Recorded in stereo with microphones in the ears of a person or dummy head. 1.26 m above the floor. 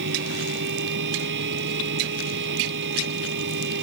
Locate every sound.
0.0 s a fan: 60° right (ahead or behind)